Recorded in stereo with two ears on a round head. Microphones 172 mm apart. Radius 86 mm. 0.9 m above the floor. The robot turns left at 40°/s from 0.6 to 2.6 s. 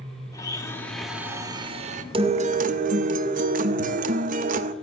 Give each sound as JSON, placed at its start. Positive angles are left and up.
{"t": 0.3, "sound": "a blender", "azimuth_deg": 15, "distance_m": 1.0}
{"t": 2.1, "sound": "a guitar", "side_deg": -30, "distance_m": 0.7}